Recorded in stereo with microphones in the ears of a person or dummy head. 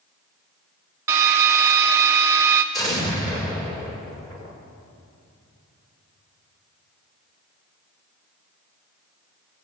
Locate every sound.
1.1 s a drill: 15° right (ahead or behind), 0.8 m
2.7 s an explosion: 20° left (ahead or behind), 5.5 m